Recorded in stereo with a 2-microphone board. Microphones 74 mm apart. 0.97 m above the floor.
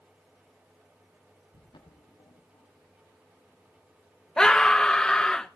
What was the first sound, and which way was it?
Footsteps, 75° left (ahead or behind).